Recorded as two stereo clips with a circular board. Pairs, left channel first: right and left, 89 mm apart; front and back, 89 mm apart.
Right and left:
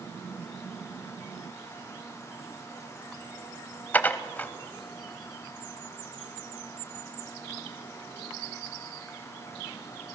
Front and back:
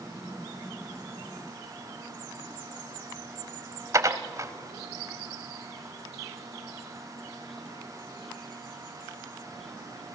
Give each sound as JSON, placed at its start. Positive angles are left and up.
{"t": 3.9, "sound": "dishes clattering", "azimuth_deg": -150, "distance_m": 0.9}